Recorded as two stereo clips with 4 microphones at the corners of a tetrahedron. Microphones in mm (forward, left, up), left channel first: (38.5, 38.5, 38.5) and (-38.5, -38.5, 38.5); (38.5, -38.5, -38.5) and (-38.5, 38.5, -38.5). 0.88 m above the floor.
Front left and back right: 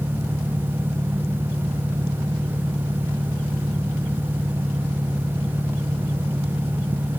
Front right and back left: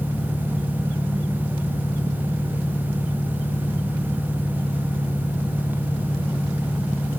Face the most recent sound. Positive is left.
turn(degrees=-80)